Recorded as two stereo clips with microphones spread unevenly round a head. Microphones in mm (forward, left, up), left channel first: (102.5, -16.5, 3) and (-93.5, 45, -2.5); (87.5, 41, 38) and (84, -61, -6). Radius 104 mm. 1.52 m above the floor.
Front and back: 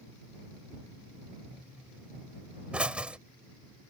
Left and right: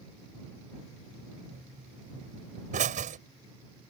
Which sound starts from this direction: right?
A pop, at 1.5 s.